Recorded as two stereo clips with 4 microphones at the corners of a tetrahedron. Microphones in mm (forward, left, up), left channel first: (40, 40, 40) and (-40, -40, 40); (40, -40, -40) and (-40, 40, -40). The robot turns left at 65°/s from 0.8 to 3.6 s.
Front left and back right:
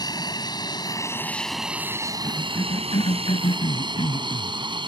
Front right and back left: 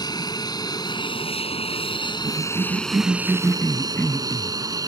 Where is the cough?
115° left; by 4.6 s 25° left.